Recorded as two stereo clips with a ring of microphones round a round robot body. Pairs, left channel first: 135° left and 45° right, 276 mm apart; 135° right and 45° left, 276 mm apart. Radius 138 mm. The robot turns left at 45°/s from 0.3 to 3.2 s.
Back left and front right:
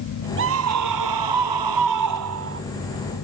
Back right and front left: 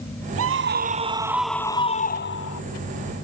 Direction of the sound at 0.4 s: 5° left.